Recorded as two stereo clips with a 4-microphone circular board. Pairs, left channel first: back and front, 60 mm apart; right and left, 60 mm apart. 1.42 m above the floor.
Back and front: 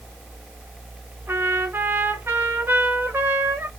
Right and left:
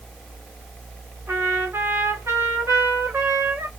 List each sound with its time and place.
1.3 s a trumpet: 45° left, 1.7 m